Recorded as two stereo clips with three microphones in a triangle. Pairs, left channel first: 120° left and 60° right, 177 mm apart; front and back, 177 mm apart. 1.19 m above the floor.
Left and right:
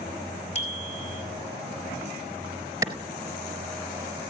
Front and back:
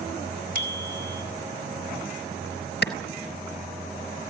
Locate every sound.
0.6 s a bicycle bell: 170° left, 5 m
2.8 s a clap: 10° left, 4.5 m